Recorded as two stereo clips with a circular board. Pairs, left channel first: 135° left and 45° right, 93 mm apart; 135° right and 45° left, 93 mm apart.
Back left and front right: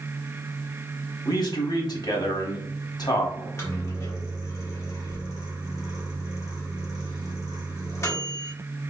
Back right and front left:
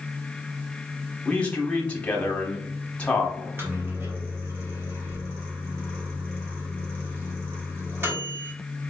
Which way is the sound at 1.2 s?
155° left.